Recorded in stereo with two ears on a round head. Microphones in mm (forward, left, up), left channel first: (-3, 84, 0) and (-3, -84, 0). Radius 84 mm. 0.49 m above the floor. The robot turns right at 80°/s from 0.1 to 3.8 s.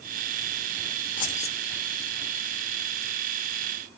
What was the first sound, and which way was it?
Keys jangling, 115° left.